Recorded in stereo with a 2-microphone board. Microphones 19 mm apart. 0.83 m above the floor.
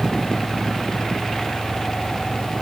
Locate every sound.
Only background noise.